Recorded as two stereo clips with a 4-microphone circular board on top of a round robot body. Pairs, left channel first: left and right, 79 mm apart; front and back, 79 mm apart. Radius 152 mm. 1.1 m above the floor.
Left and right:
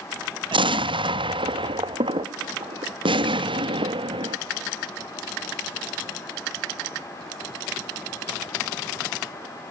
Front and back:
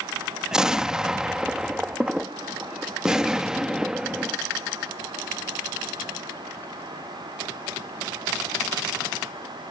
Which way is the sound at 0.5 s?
100° right.